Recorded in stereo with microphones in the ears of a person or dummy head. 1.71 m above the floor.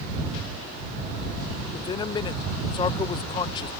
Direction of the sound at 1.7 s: 30° left (ahead or behind).